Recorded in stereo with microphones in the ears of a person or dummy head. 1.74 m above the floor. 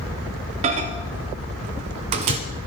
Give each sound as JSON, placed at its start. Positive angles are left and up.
{"t": 0.6, "sound": "a microwave", "side_deg": -35, "distance_m": 0.7}